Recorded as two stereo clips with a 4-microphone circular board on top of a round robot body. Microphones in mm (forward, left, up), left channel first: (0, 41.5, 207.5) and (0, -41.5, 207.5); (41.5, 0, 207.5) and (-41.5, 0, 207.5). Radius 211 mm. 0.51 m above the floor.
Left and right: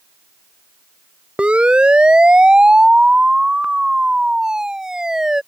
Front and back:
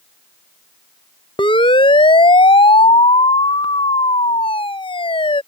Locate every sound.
1.4 s a siren: 15° right; by 5.4 s 10° right